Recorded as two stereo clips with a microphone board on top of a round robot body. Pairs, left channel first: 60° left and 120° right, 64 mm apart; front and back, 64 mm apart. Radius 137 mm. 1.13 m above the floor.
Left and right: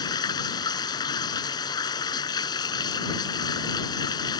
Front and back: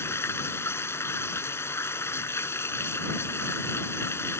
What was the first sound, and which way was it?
Running water, 55° left.